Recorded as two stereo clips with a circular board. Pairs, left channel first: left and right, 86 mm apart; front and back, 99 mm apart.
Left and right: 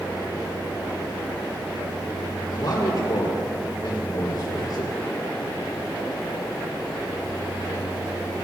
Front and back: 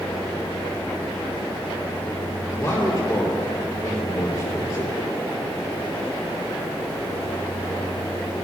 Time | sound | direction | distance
2.5 | a man speaking | 55° left | 5 m